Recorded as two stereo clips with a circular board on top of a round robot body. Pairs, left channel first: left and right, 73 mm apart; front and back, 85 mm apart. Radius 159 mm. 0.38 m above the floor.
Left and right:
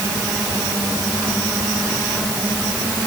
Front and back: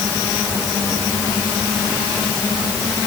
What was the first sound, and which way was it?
Only background noise.